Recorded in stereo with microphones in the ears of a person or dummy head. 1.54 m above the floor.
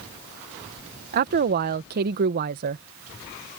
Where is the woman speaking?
55° right (ahead or behind).